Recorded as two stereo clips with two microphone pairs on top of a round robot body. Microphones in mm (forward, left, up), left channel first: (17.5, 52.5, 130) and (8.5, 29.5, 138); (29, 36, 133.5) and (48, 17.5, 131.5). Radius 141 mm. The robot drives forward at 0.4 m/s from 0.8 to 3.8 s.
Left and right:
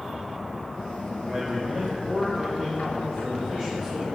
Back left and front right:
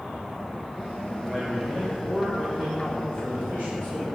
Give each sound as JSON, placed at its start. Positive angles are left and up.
{"t": 1.2, "sound": "a man speaking", "azimuth_deg": -140, "distance_m": 2.0}